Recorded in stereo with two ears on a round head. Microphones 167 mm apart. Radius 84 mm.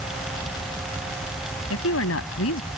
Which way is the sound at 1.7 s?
85° left.